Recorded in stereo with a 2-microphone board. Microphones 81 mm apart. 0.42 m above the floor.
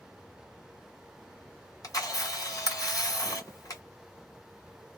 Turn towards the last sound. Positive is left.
turn(degrees=50)  # may be behind; listen again after turning